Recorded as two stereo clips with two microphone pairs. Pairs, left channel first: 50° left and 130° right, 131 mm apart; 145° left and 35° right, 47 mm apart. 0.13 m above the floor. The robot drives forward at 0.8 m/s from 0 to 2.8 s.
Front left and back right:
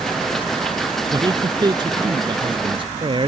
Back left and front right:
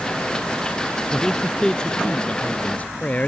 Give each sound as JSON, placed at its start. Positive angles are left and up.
{"t": 1.1, "sound": "a man speaking", "azimuth_deg": -140}